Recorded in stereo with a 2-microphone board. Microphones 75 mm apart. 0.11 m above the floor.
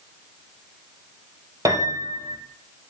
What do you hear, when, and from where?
1.6 s a piano: 50° right (ahead or behind), 1.9 m